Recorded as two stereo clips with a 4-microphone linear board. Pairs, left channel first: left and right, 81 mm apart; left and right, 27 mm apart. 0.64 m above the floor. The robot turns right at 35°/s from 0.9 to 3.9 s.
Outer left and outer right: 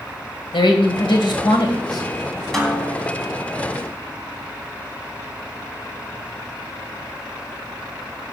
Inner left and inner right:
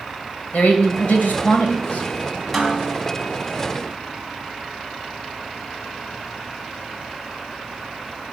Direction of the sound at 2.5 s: 5° left (ahead or behind).